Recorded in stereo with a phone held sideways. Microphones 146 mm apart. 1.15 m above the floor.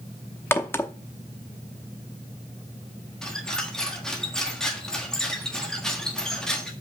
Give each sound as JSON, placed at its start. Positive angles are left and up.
{"t": 0.5, "sound": "a crack", "side_deg": 15, "distance_m": 0.7}
{"t": 3.2, "sound": "a squeak", "side_deg": 5, "distance_m": 1.4}